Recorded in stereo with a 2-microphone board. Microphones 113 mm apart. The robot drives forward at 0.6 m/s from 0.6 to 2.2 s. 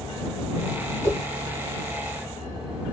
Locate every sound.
1.0 s a whoosh: 25° left (ahead or behind), 1.7 m; by 1.2 s 20° left (ahead or behind), 1.8 m